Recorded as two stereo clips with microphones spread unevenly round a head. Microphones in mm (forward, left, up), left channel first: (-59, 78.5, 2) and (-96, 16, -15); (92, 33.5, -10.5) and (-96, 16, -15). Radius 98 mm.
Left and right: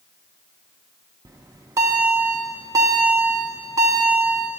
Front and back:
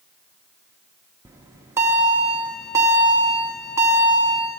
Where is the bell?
110° right, 0.7 m.